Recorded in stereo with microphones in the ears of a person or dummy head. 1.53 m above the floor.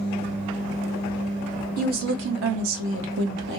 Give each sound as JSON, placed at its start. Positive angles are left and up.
{"t": 1.8, "sound": "a woman speaking", "side_deg": -50, "distance_m": 0.7}